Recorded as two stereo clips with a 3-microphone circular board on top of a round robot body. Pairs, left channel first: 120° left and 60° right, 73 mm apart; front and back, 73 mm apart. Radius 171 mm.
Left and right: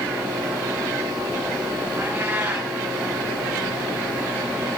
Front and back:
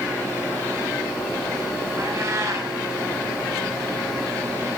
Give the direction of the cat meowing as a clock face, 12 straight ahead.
4 o'clock.